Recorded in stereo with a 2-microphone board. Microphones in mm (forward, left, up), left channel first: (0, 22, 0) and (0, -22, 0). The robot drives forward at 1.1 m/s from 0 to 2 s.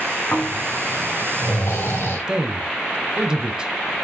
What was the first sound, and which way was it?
Snoring, 55° left (ahead or behind).